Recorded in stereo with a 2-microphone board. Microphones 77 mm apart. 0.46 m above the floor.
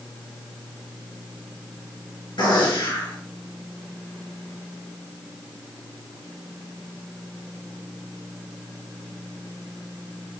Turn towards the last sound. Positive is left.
turn(degrees=85)